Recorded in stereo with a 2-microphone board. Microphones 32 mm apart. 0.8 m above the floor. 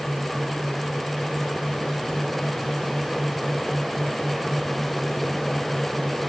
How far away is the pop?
I don't hear a pop.